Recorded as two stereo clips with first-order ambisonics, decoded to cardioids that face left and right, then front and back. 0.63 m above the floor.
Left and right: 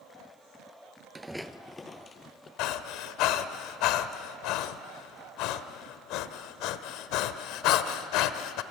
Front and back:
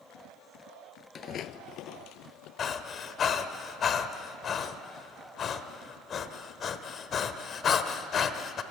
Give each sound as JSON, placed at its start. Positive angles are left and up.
{"t": 1.1, "sound": "footsteps", "azimuth_deg": -20, "distance_m": 0.6}
{"t": 2.6, "sound": "breathing", "azimuth_deg": 60, "distance_m": 0.8}